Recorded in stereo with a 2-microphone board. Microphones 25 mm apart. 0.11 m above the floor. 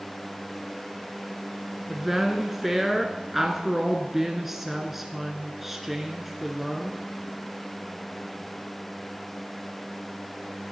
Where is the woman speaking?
5° right (ahead or behind), 1.1 m.